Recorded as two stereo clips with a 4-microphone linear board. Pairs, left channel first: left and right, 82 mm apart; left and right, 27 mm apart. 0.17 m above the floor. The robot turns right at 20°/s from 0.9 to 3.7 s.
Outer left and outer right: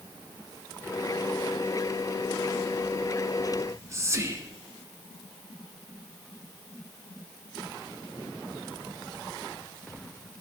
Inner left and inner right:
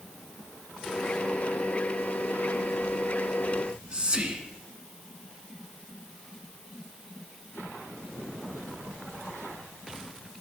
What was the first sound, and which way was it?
Whispering, 35° right (ahead or behind).